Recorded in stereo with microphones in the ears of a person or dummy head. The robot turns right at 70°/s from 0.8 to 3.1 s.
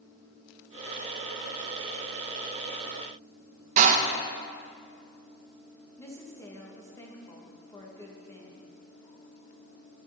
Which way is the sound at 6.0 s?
20° left (ahead or behind).